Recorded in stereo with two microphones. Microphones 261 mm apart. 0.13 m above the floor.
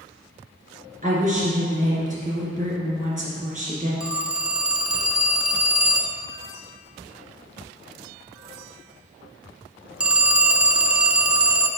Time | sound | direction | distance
1.0 | a woman speaking | 30° right (ahead or behind) | 2.5 m
4.0 | a phone ringing | 5° right (ahead or behind) | 0.7 m